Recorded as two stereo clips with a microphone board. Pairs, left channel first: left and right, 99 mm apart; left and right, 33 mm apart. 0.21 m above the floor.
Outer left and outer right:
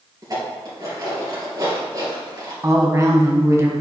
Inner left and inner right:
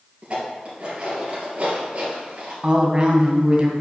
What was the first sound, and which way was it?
Dishes clattering, 40° right (ahead or behind).